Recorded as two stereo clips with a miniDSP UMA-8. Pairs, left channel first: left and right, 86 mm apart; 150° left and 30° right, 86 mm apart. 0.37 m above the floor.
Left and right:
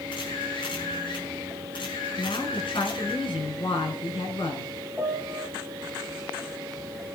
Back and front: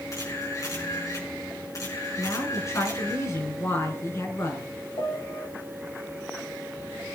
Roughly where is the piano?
Behind.